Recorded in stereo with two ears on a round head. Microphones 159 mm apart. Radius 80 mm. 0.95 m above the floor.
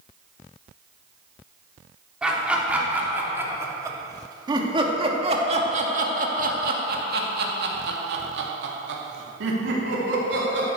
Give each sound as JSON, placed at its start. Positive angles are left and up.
{"t": 2.2, "sound": "laughter", "side_deg": -5, "distance_m": 3.0}